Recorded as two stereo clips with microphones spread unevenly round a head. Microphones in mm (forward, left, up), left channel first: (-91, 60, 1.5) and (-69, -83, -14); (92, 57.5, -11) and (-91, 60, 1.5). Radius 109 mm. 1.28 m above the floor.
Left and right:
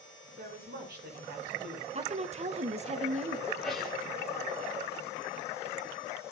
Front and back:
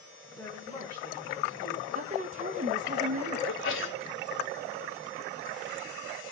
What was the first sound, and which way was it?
A woman speaking, 80° right.